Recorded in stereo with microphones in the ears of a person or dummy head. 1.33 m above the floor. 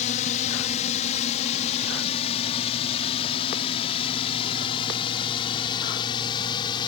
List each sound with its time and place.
0.0 s a drone: 40° left (ahead or behind); by 6.9 s 30° left (ahead or behind)